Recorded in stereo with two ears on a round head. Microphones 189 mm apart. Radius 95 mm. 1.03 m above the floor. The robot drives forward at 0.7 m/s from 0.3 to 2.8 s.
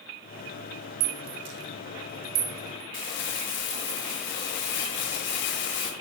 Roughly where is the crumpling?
Left.